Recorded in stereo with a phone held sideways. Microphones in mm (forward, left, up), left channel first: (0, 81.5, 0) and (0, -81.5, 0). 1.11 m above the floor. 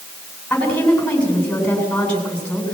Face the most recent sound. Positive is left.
turn(degrees=10)  # may be behind; listen again after turning